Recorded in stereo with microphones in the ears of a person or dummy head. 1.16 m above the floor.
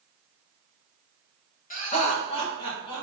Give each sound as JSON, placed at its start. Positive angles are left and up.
{"t": 1.7, "sound": "laughter", "side_deg": 45, "distance_m": 1.0}